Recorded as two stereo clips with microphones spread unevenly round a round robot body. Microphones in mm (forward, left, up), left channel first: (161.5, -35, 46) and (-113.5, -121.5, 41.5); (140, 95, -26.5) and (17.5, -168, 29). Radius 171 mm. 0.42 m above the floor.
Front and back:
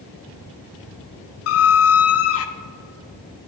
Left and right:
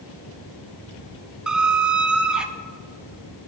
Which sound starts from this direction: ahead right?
A squeak, at 1.5 s.